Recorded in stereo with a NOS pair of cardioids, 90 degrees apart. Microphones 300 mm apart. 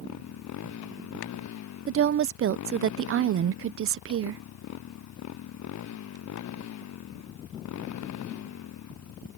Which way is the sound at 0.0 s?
65° left.